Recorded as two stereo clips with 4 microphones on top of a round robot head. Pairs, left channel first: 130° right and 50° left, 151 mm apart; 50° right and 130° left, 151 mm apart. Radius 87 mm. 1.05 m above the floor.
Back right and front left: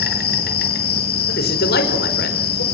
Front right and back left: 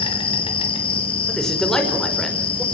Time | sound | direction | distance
0.0 | an insect | 105° right | 3.5 m
1.3 | a man speaking | 140° right | 5 m